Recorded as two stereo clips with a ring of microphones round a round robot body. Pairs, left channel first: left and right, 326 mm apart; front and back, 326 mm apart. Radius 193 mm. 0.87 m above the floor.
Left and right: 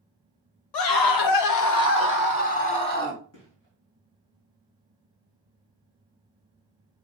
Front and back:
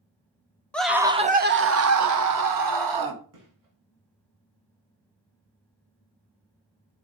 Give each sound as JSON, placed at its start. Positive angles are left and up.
{"t": 0.7, "sound": "a scream", "azimuth_deg": 85, "distance_m": 1.0}
{"t": 3.3, "sound": "a gunshot", "azimuth_deg": 150, "distance_m": 3.5}